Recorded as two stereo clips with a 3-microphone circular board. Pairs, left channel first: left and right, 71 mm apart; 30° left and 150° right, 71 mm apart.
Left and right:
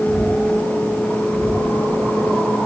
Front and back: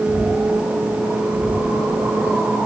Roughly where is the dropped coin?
No dropped coin in this recording.